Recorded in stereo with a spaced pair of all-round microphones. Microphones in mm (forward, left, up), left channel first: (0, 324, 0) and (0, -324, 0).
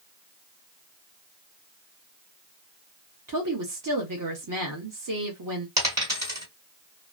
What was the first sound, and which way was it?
A woman speaking, 30° right (ahead or behind).